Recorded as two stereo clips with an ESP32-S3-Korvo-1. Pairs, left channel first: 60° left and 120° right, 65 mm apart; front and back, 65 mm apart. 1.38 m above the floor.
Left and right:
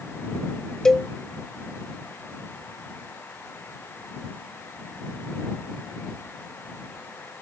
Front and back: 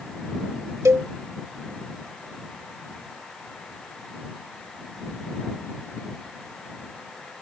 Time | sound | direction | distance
0.8 | a cowbell | 140° left | ?